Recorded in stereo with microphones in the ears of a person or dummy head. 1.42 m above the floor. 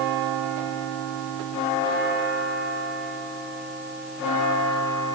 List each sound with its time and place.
Only background noise.